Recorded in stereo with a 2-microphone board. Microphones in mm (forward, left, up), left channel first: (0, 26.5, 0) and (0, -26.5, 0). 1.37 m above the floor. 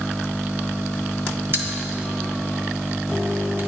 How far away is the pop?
About 1.1 m.